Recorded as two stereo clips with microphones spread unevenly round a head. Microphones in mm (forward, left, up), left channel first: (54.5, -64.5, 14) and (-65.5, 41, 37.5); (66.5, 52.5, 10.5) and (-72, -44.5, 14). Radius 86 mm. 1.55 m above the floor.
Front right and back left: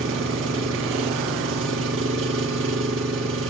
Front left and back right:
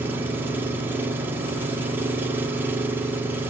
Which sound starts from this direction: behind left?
An engine running, at 0.0 s.